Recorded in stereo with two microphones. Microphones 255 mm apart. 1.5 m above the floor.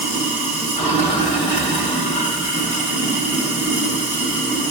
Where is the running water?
25° left (ahead or behind), 1.3 m.